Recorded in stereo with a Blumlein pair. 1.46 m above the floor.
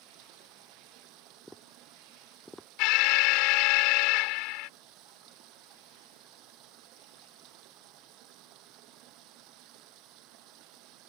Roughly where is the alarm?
Ahead left.